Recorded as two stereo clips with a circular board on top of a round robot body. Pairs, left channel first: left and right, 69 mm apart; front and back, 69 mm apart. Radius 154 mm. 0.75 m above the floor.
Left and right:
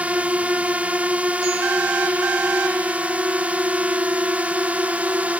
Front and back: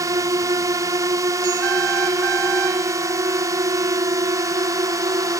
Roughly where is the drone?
Behind right.